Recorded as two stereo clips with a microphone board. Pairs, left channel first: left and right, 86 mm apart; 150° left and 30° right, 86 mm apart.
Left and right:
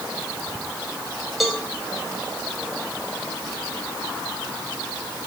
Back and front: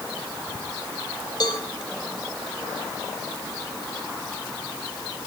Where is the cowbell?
Straight behind, 3 m.